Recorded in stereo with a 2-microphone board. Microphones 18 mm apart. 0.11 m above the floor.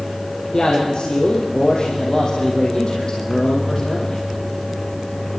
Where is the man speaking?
45° left (ahead or behind), 4 m.